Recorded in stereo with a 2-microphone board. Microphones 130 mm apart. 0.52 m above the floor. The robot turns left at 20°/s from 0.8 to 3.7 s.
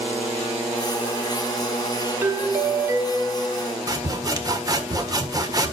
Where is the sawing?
30° right (ahead or behind), 1.4 m.